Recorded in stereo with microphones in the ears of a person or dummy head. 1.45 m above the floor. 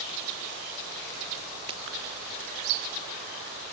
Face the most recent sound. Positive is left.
turn(degrees=-30)  # may be behind; listen again after turning